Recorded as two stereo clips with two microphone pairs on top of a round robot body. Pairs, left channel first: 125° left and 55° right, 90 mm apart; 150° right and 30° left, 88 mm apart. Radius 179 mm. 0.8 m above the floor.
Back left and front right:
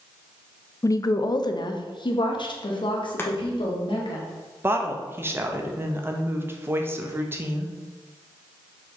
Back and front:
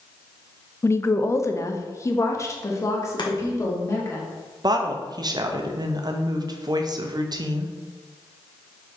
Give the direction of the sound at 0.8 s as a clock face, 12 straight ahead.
7 o'clock.